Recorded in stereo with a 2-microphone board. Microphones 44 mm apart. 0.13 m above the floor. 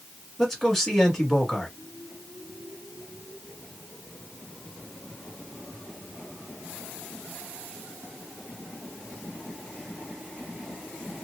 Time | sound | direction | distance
0.4 | a man speaking | 5° left (ahead or behind) | 1.7 m